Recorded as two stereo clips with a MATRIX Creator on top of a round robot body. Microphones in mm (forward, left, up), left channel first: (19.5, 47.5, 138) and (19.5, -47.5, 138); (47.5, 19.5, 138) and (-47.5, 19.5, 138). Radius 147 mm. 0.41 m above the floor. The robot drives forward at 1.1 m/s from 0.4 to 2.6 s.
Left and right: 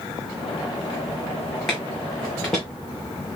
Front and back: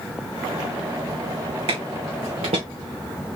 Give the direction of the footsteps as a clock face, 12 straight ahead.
6 o'clock.